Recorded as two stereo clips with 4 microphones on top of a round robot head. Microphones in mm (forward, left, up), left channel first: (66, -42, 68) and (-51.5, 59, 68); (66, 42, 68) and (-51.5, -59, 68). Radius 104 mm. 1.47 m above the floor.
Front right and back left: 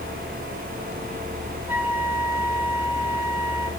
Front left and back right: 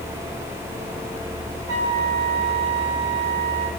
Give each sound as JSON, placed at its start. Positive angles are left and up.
{"t": 1.7, "sound": "a flute", "azimuth_deg": -145, "distance_m": 4.5}